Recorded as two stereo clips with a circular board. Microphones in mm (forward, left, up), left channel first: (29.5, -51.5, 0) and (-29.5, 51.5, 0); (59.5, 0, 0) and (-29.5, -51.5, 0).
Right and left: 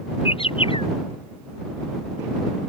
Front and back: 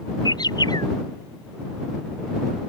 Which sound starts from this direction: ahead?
A bird, at 0.2 s.